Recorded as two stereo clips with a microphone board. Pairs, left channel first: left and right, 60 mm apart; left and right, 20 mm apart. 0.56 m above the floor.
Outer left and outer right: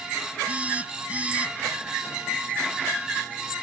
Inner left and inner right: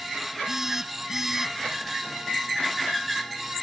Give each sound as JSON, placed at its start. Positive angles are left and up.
{"t": 0.5, "sound": "a phone buzzing", "side_deg": -25}